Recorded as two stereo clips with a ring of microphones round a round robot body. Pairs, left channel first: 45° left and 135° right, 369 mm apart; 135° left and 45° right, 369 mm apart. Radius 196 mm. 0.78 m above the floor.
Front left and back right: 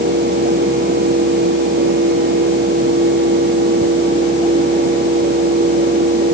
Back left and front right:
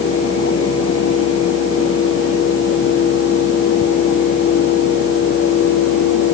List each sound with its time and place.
Only background noise.